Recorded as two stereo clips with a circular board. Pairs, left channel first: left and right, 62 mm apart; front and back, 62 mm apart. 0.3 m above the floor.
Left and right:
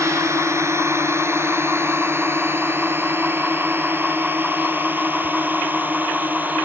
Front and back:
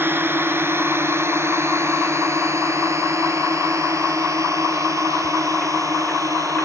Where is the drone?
130° right; by 6.7 s 150° right.